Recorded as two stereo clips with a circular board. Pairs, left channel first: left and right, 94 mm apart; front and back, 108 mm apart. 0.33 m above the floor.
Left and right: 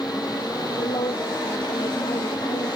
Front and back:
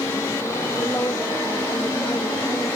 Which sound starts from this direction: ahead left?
A woman speaking, at 0.8 s.